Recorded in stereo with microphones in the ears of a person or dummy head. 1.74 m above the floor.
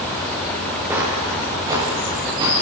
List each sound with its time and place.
0.9 s footsteps: 10° right (ahead or behind), 6 m; by 2.5 s 25° right (ahead or behind), 7 m